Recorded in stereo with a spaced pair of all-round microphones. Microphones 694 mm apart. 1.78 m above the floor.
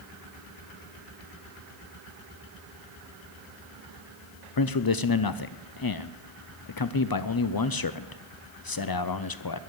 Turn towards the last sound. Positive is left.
turn(degrees=35)  # may be behind; listen again after turning